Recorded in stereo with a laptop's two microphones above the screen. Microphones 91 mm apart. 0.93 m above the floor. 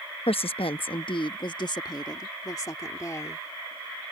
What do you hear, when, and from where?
0.3 s a woman speaking: 75° left (ahead or behind); by 3.5 s 30° left (ahead or behind)